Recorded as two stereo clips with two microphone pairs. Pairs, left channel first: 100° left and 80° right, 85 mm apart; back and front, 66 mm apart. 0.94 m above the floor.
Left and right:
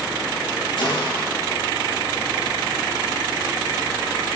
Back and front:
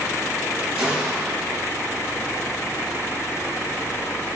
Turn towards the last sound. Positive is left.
turn(degrees=75)